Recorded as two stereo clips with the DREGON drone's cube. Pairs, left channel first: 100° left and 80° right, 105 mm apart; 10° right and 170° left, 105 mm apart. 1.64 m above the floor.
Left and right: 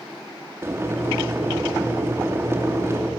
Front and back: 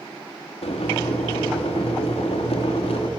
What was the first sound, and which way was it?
Boiling, 15° right.